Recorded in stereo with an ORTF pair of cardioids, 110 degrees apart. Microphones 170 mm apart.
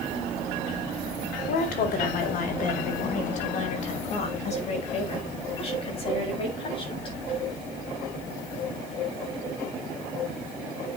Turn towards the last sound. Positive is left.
turn(degrees=30)